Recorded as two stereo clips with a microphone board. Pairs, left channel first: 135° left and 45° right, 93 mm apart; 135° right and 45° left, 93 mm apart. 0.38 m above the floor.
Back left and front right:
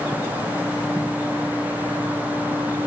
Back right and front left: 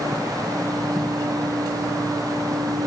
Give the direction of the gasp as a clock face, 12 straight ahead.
I don't hear a gasp.